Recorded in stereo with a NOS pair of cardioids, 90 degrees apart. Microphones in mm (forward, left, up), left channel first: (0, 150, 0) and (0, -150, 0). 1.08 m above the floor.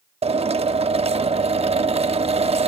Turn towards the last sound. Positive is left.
turn(degrees=-20)